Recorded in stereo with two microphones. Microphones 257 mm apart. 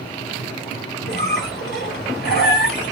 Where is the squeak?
40° left (ahead or behind), 1.6 m.